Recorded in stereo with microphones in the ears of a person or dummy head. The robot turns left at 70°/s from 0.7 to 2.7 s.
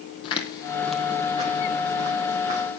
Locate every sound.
0.2 s footsteps: 30° left (ahead or behind), 2 m; by 2.8 s 30° right (ahead or behind), 3.5 m